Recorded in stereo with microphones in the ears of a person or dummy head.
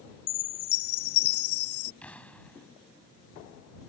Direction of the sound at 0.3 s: 50° left (ahead or behind).